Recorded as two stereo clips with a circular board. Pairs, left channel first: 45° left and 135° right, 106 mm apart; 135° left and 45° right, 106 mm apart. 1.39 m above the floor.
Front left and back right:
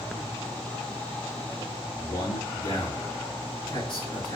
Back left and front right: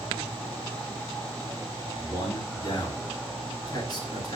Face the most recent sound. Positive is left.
turn(degrees=85)